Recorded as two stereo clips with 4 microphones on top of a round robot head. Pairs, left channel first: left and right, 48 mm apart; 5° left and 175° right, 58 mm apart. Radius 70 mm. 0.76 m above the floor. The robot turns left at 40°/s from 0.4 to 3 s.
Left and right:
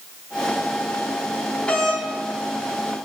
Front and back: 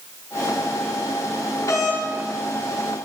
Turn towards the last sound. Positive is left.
turn(degrees=-30)